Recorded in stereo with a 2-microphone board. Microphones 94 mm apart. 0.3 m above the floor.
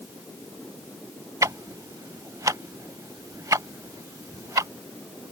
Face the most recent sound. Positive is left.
turn(degrees=-35)  # may be behind; listen again after turning